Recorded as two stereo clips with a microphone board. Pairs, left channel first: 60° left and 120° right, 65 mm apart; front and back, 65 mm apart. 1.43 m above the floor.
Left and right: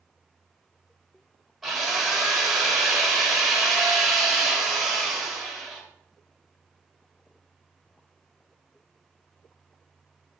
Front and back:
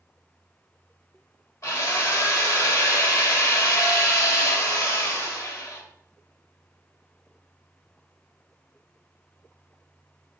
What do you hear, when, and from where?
1.6 s a drill: 35° right, 1.9 m